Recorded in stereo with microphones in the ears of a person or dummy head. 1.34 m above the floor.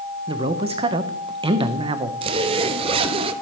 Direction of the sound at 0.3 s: 30° right (ahead or behind).